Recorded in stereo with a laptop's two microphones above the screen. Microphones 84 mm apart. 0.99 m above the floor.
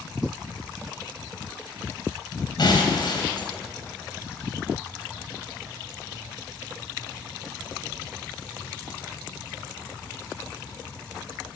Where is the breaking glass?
60° left (ahead or behind), 3.5 m.